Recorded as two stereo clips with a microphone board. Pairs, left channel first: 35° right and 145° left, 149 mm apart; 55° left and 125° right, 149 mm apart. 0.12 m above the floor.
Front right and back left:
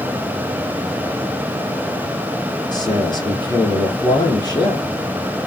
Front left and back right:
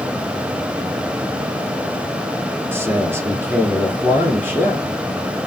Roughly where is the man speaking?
Ahead right.